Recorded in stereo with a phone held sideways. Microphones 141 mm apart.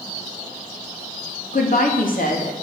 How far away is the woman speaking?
About 3 m.